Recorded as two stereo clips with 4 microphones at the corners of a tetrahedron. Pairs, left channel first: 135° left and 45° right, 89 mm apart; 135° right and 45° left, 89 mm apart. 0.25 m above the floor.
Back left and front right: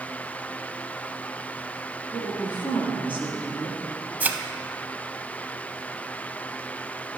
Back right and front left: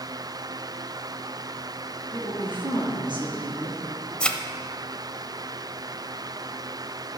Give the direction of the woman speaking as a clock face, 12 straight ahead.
10 o'clock.